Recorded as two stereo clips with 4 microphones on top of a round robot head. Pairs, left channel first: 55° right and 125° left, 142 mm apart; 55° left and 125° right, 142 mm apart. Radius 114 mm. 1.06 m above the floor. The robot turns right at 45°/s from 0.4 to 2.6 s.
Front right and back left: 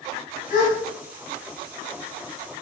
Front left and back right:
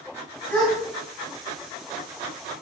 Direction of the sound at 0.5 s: 25° right.